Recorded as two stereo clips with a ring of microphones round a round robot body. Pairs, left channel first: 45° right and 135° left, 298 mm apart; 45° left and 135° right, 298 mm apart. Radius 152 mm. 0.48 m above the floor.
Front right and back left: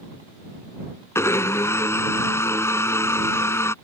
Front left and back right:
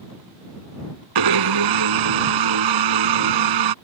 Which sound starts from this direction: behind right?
A blender, at 1.1 s.